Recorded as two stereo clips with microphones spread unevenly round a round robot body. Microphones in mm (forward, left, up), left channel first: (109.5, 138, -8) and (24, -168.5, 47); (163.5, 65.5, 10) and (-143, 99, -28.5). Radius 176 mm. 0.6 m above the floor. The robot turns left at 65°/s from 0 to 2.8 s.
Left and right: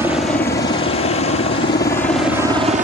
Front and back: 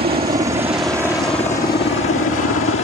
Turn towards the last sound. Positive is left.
turn(degrees=-40)